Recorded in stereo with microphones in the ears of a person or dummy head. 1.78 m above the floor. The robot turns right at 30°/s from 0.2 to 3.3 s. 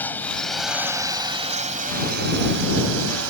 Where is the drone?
10° left (ahead or behind); by 3.3 s 85° right.